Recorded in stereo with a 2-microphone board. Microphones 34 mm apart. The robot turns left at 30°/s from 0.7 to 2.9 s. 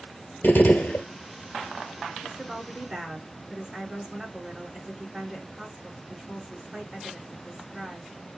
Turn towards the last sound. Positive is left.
turn(degrees=-25)  # may be behind; listen again after turning